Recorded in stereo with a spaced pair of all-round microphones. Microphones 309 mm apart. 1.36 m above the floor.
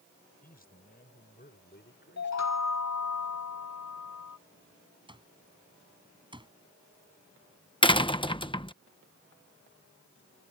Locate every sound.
0.4 s a man speaking: 30° left (ahead or behind); by 2.7 s 40° left (ahead or behind)
2.2 s a chime: 65° left (ahead or behind)
5.1 s an alarm clock: 15° right (ahead or behind)
7.8 s a door slam: 15° left (ahead or behind)